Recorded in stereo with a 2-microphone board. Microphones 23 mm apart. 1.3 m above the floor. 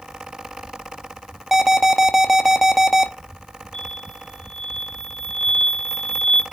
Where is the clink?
I don't hear a clink.